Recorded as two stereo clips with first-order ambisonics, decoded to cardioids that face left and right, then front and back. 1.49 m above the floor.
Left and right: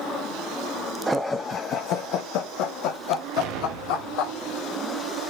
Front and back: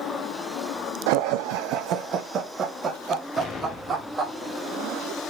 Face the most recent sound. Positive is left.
turn(degrees=-70)